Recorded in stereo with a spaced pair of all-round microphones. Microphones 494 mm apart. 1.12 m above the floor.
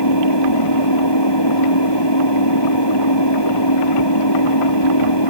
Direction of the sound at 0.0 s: 55° left (ahead or behind).